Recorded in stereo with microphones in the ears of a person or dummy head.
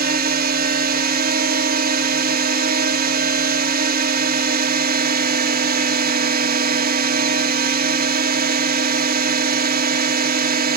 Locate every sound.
0.0 s a drone: 40° right (ahead or behind)